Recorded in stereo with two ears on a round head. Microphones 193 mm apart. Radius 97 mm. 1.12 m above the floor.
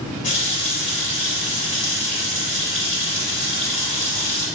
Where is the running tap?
35° left (ahead or behind), 3 m.